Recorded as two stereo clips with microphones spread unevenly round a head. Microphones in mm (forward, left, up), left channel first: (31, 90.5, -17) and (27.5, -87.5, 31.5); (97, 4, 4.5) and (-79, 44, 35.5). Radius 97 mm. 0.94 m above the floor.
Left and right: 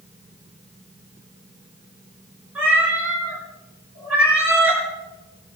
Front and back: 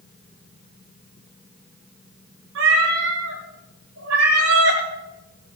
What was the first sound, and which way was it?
A cat meowing, 170° right.